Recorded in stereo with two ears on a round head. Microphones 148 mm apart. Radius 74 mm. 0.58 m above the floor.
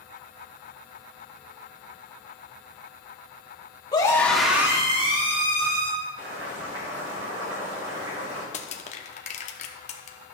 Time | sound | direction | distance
3.9 | a scream | 25° left (ahead or behind) | 1.3 m
6.2 | boiling | 80° right | 4.5 m
8.5 | crushing | 45° left (ahead or behind) | 0.8 m